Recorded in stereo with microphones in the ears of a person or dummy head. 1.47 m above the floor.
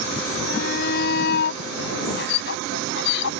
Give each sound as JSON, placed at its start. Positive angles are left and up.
{"t": 0.5, "sound": "a shout", "side_deg": 55}